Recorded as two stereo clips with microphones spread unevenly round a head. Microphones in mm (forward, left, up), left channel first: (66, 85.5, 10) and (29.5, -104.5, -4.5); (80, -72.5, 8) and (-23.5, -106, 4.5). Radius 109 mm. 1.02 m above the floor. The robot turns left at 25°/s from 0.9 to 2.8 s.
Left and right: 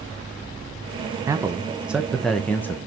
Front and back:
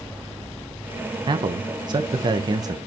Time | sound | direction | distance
1.3 | a man speaking | 165° right | 0.9 m